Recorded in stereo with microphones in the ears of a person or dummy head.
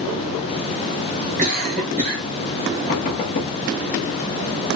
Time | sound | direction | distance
1.4 | a cough | 35° right (ahead or behind) | 1.3 m
2.9 | knocking | 40° left (ahead or behind) | 0.9 m